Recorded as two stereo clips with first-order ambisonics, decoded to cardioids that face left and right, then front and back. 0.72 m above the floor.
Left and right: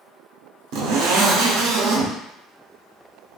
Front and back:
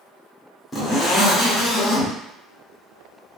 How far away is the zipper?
About 0.7 m.